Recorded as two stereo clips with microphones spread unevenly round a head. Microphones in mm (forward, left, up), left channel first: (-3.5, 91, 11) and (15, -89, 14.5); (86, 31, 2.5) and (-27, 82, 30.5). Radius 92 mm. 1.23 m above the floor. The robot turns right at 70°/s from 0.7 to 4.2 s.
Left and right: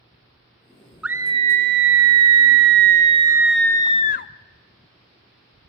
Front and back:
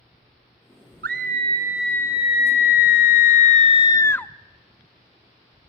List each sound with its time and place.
1.0 s a scream: 170° right, 0.7 m; by 4.3 s 50° left, 0.7 m